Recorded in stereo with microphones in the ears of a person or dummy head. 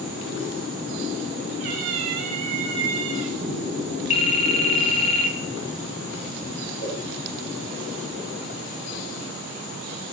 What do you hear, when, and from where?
1.6 s a cat meowing: 30° right (ahead or behind), 1.1 m
4.1 s a phone ringing: 30° left (ahead or behind), 0.7 m
6.8 s a pop: 35° left (ahead or behind), 3.5 m